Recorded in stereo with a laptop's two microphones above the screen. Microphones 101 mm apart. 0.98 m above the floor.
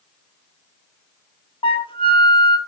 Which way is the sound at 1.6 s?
60° left (ahead or behind).